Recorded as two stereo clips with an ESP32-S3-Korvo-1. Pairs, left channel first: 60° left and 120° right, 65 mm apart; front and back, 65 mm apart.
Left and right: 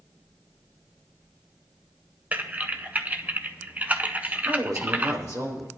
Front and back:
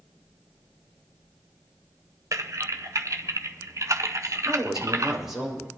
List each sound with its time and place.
2.3 s typing on a keyboard: straight behind, 0.7 m
4.5 s a woman speaking: 100° right, 5.5 m